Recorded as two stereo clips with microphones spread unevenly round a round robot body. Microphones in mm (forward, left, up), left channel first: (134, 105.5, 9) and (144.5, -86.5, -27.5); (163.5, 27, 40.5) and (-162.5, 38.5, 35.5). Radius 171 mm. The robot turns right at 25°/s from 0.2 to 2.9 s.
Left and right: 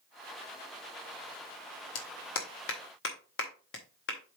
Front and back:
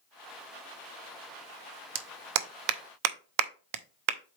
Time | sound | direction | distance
1.9 | a clap | 125° left | 0.7 m